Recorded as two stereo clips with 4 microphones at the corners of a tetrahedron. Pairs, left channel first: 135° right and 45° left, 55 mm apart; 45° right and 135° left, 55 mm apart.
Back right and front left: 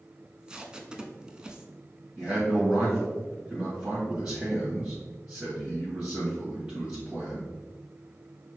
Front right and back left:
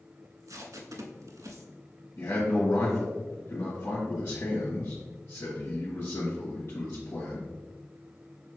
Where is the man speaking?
25° right, 1.6 m.